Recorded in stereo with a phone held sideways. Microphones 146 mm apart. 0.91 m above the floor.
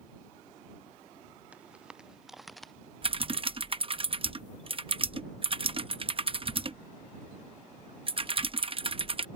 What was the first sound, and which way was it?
Footsteps, 10° right (ahead or behind).